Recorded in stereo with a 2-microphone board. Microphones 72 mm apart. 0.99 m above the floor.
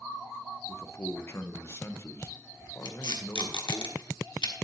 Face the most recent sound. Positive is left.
turn(degrees=85)